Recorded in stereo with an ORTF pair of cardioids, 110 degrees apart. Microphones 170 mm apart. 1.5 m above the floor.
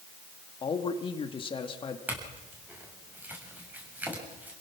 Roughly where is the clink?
Ahead.